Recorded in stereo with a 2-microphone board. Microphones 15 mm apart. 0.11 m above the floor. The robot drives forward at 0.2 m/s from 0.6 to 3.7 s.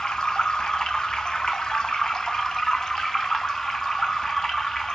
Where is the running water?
85° left, 0.9 m; by 5.0 s 55° left (ahead or behind), 1.0 m.